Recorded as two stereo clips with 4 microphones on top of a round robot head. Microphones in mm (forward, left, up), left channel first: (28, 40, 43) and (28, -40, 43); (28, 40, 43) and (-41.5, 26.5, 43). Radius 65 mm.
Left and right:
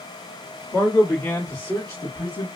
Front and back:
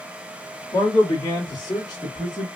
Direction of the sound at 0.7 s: 35° left.